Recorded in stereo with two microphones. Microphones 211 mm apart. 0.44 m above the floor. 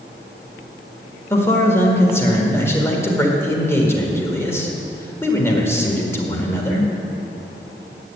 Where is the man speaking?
10° left (ahead or behind), 1.7 m.